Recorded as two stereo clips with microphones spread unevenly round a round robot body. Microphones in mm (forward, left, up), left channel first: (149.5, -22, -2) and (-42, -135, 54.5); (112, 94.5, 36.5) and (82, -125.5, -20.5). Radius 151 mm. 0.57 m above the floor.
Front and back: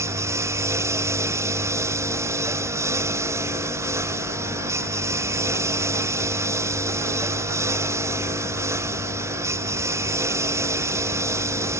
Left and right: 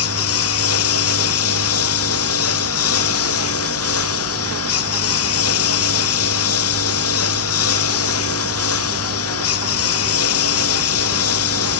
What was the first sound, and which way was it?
A lawn mower, 130° left.